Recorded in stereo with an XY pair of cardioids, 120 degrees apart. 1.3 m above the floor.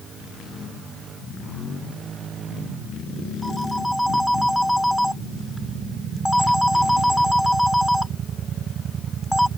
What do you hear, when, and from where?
3.4 s a phone ringing: straight ahead